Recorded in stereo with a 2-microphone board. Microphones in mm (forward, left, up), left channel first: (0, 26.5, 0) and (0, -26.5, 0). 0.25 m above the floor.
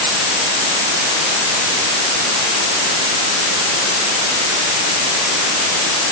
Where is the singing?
No singing in this recording.